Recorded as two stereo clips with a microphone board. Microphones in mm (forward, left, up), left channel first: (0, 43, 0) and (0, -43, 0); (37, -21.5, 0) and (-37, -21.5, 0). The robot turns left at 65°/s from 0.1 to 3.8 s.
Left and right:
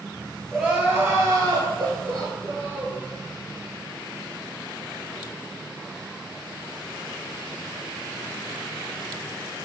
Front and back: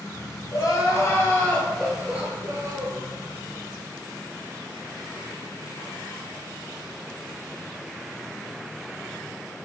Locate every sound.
0.5 s crying: 5° right, 0.8 m; by 3.0 s 170° right, 0.8 m